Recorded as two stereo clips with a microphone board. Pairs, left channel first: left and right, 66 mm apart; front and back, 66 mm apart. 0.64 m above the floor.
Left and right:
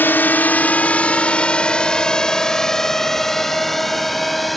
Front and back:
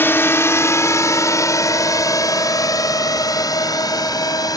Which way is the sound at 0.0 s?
45° left.